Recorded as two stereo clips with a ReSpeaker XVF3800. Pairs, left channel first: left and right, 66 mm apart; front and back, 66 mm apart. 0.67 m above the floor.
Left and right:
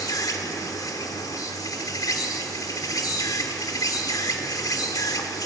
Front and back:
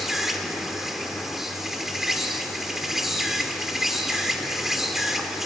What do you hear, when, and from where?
0.0 s an insect: 95° left, 1.9 m